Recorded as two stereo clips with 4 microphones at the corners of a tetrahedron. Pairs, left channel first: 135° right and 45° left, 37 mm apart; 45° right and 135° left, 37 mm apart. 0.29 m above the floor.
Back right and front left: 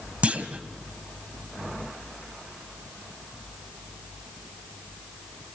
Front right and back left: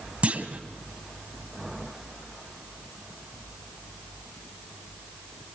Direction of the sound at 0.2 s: 90° left.